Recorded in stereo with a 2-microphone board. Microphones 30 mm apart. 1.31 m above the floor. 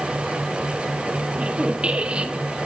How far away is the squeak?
About 1.7 m.